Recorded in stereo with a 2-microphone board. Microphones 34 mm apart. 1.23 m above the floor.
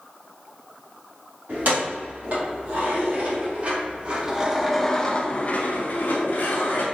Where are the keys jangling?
60° right (ahead or behind), 1.8 m; by 6.8 s 75° left (ahead or behind), 1.1 m.